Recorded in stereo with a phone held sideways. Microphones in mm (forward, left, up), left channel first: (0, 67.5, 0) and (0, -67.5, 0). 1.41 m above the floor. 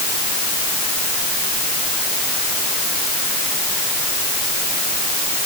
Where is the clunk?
No clunk in this recording.